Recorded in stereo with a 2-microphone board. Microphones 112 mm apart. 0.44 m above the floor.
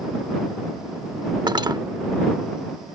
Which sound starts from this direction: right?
Cutlery clinking, at 1.5 s.